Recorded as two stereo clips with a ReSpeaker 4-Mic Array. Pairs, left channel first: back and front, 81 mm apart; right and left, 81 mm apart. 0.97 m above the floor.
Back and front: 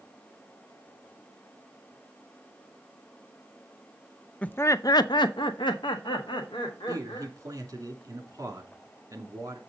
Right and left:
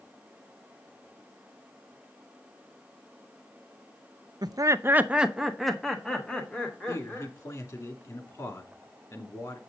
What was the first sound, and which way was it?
Laughter, 110° left.